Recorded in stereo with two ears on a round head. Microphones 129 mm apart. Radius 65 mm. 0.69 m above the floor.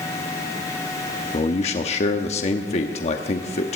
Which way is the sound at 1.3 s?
45° left (ahead or behind).